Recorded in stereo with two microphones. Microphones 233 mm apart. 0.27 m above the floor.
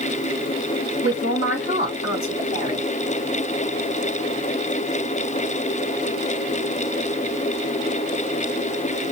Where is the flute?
No flute in this recording.